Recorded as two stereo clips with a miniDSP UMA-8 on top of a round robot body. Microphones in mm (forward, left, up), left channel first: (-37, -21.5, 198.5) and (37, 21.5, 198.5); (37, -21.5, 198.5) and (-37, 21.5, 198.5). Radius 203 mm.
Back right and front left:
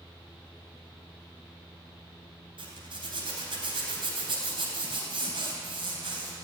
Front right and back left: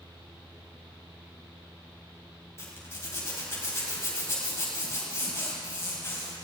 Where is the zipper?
30° left, 4 m.